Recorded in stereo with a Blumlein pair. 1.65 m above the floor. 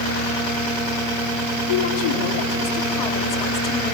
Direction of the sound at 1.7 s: 55° left.